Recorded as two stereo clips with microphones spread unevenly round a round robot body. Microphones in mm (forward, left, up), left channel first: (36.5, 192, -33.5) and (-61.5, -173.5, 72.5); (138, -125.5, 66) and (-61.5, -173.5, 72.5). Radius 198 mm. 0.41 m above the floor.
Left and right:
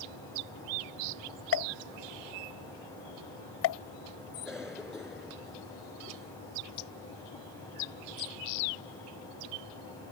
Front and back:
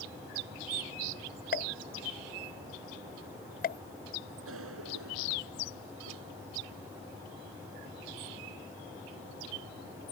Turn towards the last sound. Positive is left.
turn(degrees=165)